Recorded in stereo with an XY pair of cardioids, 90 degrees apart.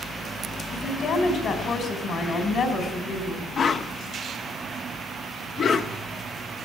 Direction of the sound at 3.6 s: 65° left.